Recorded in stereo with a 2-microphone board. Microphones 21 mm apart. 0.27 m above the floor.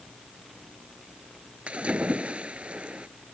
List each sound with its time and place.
1.7 s a splash: 65° right (ahead or behind)